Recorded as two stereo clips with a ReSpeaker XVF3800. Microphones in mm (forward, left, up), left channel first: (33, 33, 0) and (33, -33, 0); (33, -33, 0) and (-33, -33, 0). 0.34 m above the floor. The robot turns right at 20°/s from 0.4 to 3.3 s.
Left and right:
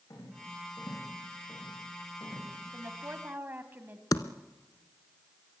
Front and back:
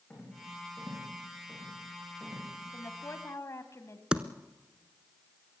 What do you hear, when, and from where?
0.1 s a rattle: 70° left, 8.5 m; by 2.5 s 110° left, 8.5 m
2.7 s a woman speaking: 45° right, 1.8 m; by 4.0 s 35° right, 1.8 m
4.1 s typing on a keyboard: 105° left, 0.8 m